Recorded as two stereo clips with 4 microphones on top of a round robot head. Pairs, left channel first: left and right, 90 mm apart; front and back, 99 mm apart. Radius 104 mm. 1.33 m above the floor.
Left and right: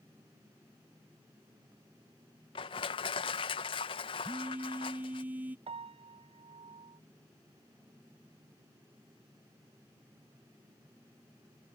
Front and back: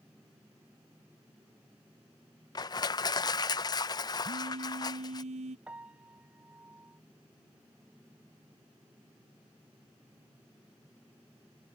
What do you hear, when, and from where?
2.5 s crushing: 50° left
4.2 s a phone buzzing: 160° right
5.7 s a piano: 100° right